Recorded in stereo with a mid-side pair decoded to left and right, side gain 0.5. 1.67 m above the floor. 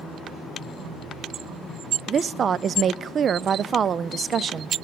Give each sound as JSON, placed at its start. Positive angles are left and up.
{"t": 2.1, "sound": "a woman speaking", "azimuth_deg": -40, "distance_m": 0.5}